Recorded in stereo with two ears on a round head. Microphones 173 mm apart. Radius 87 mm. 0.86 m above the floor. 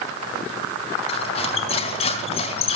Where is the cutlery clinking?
30° left (ahead or behind), 3.5 m.